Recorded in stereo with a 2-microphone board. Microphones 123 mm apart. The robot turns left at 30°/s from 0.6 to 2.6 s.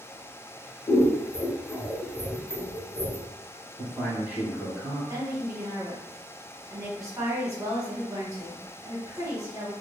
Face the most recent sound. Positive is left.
turn(degrees=-30)  # may be behind; listen again after turning